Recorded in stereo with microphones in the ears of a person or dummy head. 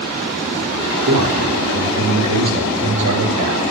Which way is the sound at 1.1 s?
80° right.